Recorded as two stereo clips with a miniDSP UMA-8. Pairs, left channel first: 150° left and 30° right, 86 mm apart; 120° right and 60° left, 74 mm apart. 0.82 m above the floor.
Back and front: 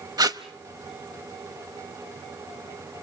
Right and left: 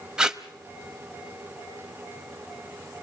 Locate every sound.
0.2 s tape being pulled: 15° right, 0.8 m